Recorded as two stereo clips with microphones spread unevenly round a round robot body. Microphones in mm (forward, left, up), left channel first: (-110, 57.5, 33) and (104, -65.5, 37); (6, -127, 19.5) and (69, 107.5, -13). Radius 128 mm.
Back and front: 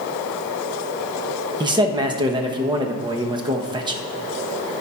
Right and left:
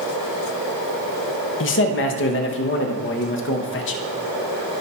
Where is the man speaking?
95° right, 0.9 m.